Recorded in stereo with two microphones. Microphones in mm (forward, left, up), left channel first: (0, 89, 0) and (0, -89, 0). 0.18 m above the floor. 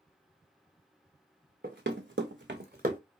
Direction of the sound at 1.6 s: 60° right (ahead or behind).